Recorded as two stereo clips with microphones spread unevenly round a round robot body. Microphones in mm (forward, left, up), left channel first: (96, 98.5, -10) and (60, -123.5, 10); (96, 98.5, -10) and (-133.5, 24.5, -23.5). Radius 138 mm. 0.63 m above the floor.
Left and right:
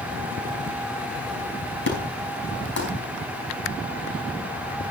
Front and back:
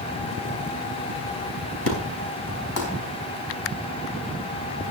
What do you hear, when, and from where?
1.9 s an explosion: 45° left, 5 m